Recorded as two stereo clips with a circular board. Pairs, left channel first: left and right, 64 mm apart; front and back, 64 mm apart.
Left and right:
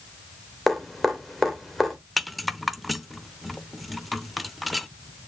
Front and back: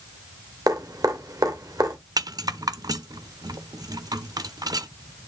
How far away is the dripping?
About 2.5 m.